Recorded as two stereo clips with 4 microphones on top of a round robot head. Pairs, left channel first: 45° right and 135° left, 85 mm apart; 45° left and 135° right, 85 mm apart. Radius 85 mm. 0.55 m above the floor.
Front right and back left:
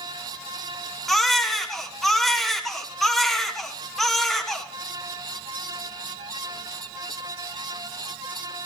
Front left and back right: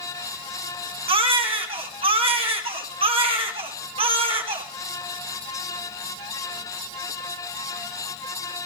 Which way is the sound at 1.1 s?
130° right.